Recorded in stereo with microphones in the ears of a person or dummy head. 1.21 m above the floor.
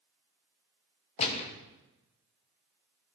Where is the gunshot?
35° left (ahead or behind), 0.9 m.